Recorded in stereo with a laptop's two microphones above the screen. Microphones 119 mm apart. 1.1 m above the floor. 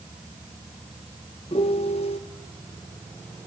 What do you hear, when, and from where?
1.5 s a piano: 55° left (ahead or behind), 0.8 m